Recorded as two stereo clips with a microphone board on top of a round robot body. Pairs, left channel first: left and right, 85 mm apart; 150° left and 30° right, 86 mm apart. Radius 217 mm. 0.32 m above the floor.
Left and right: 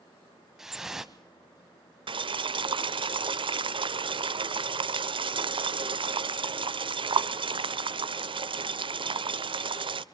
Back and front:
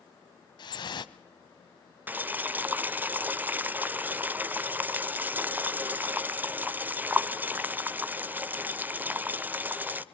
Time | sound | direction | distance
0.6 | dripping | 175° right | 0.9 m
2.1 | boiling | 100° right | 0.9 m